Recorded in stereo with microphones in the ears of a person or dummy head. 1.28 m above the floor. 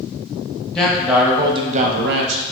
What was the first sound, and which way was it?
A man speaking, centre (ahead or behind).